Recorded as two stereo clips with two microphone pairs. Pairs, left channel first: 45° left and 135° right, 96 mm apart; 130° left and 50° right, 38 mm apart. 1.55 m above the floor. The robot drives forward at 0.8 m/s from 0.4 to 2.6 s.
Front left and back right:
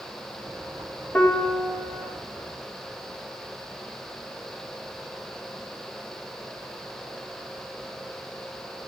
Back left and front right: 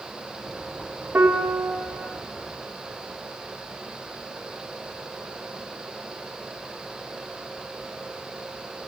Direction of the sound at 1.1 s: 30° right.